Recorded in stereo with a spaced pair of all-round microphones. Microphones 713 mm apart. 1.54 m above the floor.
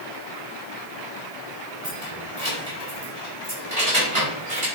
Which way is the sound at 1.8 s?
50° right (ahead or behind).